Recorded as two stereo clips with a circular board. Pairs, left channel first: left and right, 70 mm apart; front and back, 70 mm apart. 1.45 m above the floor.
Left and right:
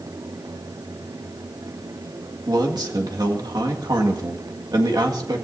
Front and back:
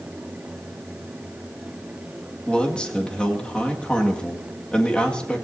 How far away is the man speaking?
About 2.0 m.